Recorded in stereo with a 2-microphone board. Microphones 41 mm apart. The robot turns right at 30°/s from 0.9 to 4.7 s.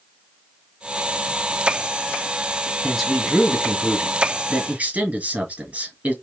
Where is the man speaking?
170° left, 2 m; by 6.1 s 135° right, 2 m.